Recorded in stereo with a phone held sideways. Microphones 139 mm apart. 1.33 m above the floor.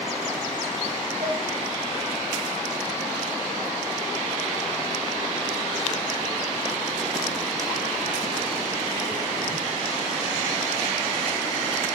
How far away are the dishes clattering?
About 6.5 m.